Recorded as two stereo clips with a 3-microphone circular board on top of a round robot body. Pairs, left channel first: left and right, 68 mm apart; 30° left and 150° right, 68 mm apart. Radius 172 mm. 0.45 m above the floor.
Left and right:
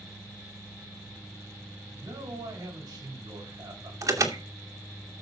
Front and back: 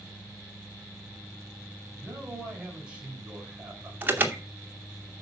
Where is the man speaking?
75° right, 6 m.